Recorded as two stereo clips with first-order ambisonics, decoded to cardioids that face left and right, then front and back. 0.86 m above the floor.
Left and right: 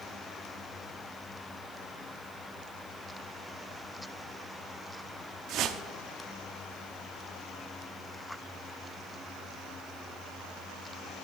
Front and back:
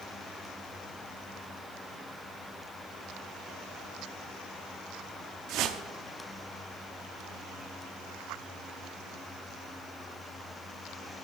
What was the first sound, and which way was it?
A whoosh, 135° right.